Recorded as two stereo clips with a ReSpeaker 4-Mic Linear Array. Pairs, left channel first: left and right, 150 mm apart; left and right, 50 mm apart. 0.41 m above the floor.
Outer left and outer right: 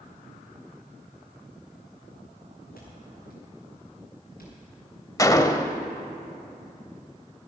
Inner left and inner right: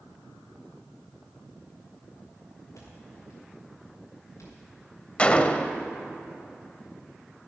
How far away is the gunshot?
About 0.6 m.